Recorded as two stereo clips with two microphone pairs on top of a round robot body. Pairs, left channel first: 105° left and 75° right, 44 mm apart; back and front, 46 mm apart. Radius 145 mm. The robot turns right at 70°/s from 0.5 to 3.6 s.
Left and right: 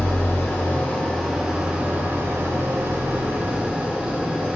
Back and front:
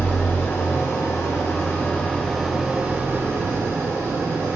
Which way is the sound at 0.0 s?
135° left.